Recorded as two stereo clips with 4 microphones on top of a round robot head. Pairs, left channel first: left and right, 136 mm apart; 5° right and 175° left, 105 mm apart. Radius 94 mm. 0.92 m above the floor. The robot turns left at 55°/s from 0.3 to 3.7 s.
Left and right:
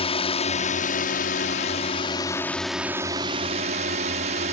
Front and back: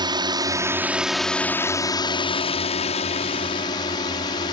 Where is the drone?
130° left; by 4.5 s 55° right.